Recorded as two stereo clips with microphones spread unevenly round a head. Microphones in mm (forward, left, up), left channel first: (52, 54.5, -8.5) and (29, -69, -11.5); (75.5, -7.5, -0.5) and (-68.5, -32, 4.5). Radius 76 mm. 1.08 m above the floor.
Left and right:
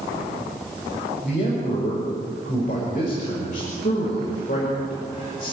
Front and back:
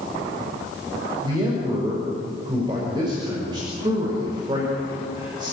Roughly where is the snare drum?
No snare drum in this recording.